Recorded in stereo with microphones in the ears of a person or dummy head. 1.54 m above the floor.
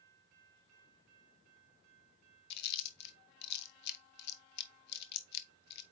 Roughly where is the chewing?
Left.